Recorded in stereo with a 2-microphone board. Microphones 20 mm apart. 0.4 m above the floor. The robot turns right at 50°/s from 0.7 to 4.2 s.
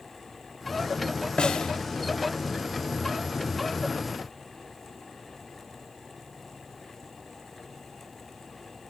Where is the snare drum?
45° left (ahead or behind), 1.1 m.